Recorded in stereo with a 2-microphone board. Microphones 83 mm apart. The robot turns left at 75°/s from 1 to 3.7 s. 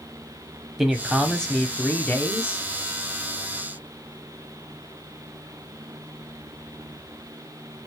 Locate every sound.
0.8 s a man speaking: 5° right (ahead or behind), 1.0 m; by 2.6 s 20° left (ahead or behind), 1.0 m